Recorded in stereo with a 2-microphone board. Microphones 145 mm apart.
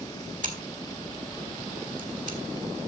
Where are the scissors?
60° right (ahead or behind), 2.5 m.